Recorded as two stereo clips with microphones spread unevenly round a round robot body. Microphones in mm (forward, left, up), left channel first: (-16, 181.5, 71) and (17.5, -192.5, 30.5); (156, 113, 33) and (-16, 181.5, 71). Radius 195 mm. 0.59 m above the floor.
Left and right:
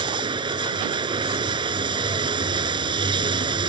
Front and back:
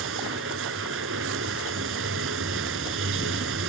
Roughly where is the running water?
Behind.